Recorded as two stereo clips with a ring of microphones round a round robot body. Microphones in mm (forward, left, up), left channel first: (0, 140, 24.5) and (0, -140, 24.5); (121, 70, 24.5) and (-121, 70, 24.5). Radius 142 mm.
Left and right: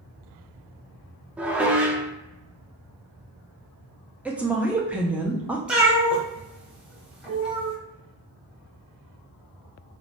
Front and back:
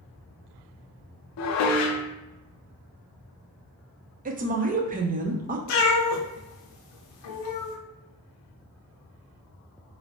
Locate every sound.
1.4 s dishes clattering: 5° right, 0.5 m
4.2 s a woman speaking: 170° right, 0.5 m
5.7 s a cat meowing: 5° right, 0.9 m